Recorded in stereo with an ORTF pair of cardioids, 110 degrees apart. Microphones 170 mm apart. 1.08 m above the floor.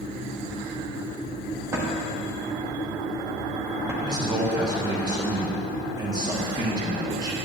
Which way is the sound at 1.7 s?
15° right.